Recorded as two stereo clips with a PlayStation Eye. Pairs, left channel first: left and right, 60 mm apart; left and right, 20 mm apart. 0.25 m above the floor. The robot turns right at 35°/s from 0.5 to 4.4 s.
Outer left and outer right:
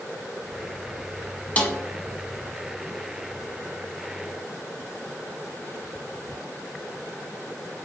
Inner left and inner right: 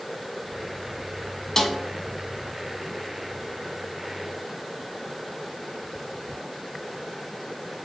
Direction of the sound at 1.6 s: 25° left (ahead or behind).